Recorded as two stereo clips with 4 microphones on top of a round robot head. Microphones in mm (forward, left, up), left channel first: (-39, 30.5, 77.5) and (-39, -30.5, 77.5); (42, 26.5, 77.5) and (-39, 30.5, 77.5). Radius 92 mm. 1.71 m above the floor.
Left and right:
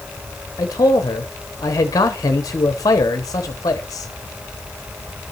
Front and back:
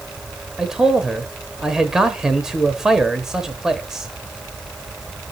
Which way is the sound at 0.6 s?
95° left.